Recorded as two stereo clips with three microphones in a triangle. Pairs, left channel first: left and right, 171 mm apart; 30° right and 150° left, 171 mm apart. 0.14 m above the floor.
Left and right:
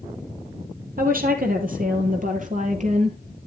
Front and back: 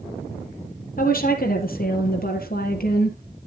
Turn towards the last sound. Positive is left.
turn(degrees=-50)